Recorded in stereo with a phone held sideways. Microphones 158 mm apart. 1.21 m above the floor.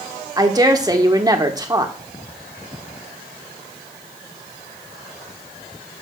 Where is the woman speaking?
20° right (ahead or behind), 1.1 m.